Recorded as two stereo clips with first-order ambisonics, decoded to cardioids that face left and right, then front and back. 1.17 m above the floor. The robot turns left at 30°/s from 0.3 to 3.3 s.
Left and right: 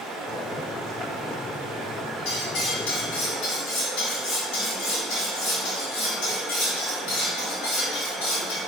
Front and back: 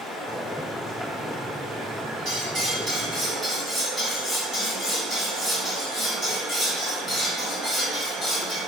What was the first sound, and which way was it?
Running water, 75° right.